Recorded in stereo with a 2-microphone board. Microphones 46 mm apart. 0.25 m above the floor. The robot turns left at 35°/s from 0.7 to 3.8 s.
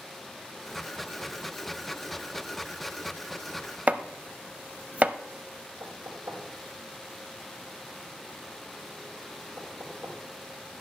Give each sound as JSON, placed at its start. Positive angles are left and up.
{"t": 3.9, "sound": "chopping", "side_deg": -30, "distance_m": 0.5}
{"t": 5.8, "sound": "knocking", "side_deg": -75, "distance_m": 5.0}